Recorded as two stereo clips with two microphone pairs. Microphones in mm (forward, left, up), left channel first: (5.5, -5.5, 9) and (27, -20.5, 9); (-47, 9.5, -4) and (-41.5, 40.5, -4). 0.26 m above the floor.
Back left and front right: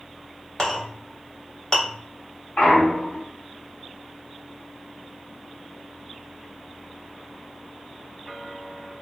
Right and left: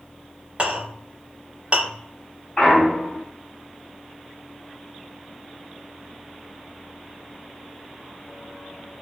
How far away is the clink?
About 0.9 m.